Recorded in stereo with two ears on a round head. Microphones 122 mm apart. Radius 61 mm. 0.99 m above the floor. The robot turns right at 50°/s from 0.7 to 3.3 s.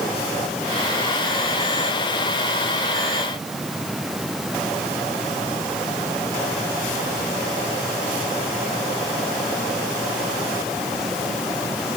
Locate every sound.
Only background noise.